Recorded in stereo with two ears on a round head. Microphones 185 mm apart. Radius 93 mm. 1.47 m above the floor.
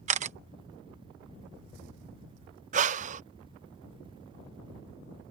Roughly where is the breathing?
Right.